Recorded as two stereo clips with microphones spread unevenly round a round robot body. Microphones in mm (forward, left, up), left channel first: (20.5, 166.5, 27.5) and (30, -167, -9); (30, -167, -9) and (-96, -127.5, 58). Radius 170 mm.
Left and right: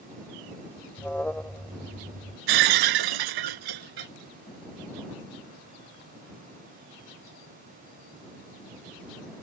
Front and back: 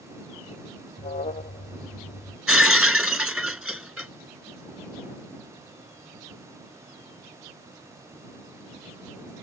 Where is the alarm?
5° left.